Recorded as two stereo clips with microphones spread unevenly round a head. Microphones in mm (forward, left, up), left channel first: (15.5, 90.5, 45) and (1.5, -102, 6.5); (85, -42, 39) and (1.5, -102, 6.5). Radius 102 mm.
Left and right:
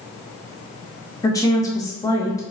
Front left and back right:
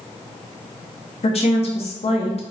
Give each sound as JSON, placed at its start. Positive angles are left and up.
{"t": 1.2, "sound": "a woman speaking", "azimuth_deg": 10, "distance_m": 1.3}